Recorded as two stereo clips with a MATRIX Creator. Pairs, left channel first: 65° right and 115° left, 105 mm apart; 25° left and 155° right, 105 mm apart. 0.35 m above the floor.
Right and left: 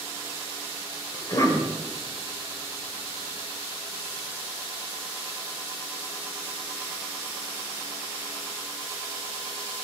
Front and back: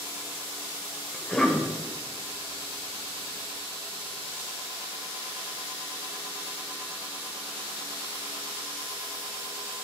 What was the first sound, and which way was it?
A cough, 50° right.